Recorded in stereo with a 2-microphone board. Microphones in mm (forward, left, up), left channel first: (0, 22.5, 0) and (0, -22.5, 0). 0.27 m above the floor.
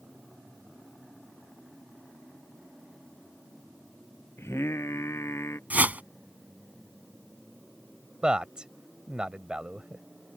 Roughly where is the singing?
Left.